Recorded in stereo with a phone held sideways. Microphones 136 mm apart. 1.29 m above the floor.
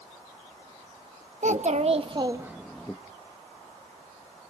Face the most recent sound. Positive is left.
turn(degrees=15)  # may be behind; listen again after turning